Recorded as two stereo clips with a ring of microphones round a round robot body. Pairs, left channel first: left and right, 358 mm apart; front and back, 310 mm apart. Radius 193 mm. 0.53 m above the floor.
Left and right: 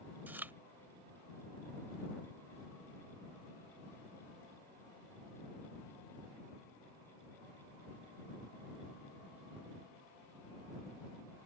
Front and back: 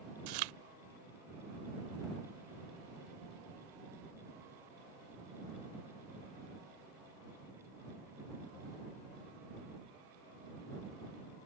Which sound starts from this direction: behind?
Chewing, at 0.3 s.